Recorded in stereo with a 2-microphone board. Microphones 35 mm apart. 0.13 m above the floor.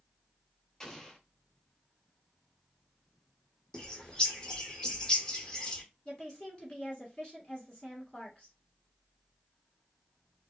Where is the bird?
20° left (ahead or behind), 1.0 m.